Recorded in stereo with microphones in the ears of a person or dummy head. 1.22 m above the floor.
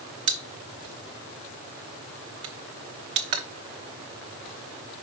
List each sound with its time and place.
0.3 s a pop: 25° right (ahead or behind), 0.8 m